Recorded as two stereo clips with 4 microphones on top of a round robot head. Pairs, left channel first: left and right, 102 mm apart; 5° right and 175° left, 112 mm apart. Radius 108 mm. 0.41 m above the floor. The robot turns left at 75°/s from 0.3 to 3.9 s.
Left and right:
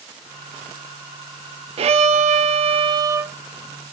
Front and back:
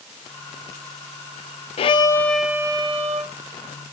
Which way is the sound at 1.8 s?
50° right.